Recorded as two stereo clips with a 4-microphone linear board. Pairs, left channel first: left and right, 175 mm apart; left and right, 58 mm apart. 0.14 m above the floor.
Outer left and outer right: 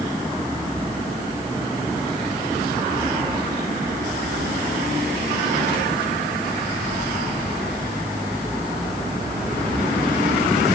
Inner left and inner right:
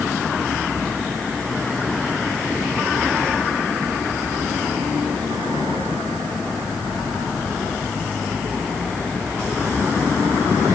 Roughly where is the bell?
No bell in this recording.